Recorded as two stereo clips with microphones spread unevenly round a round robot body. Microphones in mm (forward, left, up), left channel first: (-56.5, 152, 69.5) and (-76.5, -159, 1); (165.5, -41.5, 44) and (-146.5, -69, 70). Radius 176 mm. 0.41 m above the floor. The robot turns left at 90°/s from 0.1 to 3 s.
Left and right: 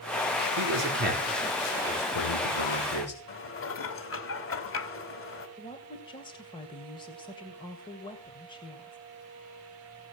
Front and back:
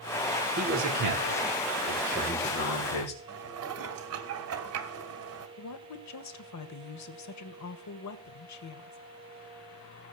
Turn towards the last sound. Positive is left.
turn(degrees=5)